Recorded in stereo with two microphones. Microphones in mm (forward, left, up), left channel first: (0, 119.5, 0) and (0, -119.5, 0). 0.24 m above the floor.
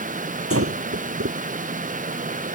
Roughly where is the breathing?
Right.